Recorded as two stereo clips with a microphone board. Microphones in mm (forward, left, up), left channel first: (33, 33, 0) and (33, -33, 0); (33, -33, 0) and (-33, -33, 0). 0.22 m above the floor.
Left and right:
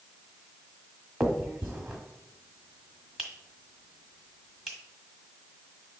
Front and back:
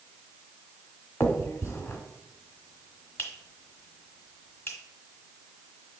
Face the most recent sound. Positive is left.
turn(degrees=0)